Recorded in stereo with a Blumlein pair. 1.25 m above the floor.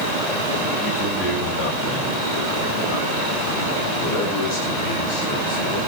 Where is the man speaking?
30° left, 6 m; by 5.8 s 45° left, 10 m.